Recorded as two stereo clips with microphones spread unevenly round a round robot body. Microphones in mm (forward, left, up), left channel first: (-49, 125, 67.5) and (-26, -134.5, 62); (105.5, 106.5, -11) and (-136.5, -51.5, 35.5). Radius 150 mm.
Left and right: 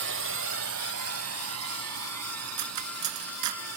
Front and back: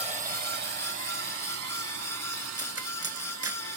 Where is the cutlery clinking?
65° right.